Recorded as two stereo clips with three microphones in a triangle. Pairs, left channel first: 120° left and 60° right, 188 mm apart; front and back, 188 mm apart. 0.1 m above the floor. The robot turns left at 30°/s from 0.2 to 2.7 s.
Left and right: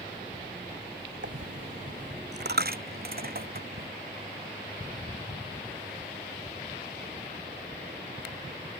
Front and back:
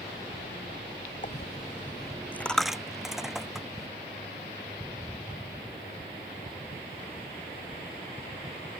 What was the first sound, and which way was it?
A dropped coin, 45° right.